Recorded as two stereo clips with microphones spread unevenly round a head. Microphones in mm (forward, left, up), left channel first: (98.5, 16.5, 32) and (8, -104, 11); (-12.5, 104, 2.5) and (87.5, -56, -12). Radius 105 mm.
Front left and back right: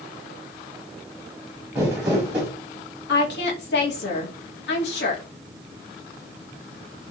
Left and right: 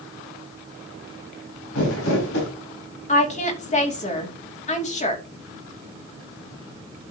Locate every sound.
1.8 s crumpling: 150° left, 5 m
3.1 s a woman speaking: 70° left, 2.5 m